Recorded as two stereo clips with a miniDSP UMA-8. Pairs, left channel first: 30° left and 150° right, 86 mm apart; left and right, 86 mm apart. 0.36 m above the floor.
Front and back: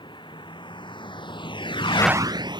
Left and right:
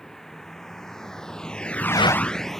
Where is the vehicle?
5° left; by 2.6 s straight behind.